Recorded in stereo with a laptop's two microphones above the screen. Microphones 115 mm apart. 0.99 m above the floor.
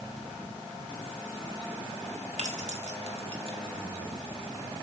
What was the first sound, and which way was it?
Keys jangling, 75° right (ahead or behind).